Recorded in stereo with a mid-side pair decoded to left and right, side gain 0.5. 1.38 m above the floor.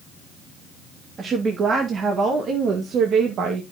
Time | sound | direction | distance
1.2 | a woman speaking | 45° right | 2.5 m